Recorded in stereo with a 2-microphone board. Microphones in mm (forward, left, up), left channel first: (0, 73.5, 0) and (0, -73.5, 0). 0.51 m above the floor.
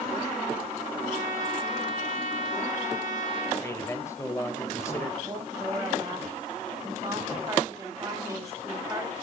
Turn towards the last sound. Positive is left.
turn(degrees=-20)  # may be behind; listen again after turning